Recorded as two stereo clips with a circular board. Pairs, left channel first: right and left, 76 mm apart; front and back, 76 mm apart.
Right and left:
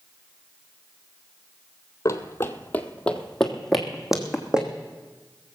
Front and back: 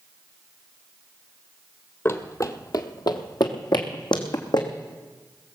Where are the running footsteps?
50° right, 0.9 m; by 4.7 s 10° left, 1.9 m.